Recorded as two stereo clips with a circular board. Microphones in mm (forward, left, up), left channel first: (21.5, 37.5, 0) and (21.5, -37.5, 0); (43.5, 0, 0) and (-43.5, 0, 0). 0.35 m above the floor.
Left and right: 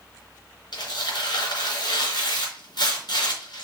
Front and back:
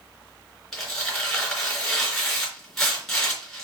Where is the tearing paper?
85° left, 3.5 m.